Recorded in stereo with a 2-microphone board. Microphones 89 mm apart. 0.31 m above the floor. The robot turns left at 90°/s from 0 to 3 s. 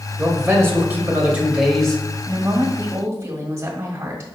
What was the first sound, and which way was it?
A man speaking, 15° right (ahead or behind).